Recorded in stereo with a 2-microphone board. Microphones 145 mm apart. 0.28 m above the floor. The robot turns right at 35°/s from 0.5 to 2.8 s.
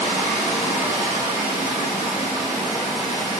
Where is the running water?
70° left, 2 m; by 3.4 s 150° left, 2 m.